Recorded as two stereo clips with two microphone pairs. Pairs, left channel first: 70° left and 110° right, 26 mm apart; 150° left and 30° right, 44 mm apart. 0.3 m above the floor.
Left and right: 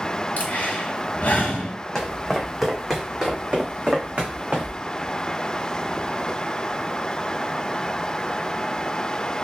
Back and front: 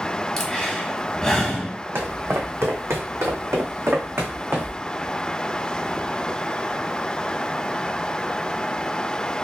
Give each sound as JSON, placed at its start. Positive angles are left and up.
{"t": 0.4, "sound": "breathing", "azimuth_deg": 70, "distance_m": 1.2}
{"t": 1.9, "sound": "footsteps", "azimuth_deg": 5, "distance_m": 1.1}